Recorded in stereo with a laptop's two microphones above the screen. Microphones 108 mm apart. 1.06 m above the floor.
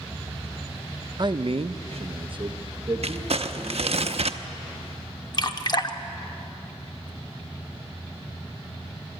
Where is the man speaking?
40° right (ahead or behind), 0.7 m; by 4.0 s 25° right (ahead or behind), 2 m.